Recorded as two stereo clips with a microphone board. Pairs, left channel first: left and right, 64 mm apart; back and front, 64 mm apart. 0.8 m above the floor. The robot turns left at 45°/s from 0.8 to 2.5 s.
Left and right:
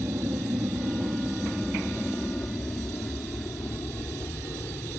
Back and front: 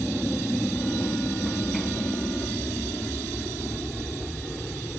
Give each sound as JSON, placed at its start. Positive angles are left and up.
{"t": 0.0, "sound": "an aircraft", "azimuth_deg": -105}